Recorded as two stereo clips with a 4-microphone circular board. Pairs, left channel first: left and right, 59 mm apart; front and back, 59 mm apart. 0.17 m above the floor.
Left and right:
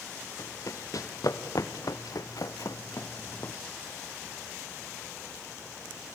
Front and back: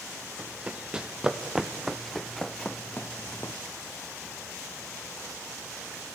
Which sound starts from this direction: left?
Running footsteps, at 0.4 s.